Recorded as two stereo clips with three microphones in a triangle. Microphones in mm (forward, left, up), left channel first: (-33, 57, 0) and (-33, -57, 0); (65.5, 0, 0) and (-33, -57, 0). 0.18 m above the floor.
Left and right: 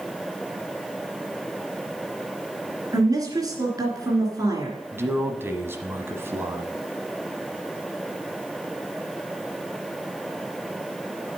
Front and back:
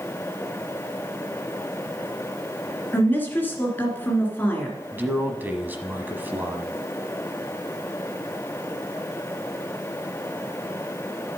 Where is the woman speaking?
40° right, 2.5 m.